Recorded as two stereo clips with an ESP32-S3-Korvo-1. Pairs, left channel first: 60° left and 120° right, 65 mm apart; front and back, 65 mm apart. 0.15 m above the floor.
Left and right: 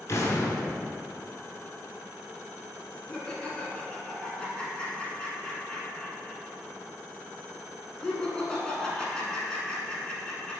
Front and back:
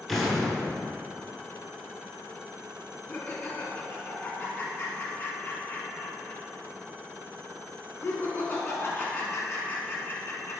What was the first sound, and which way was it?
An explosion, 90° left.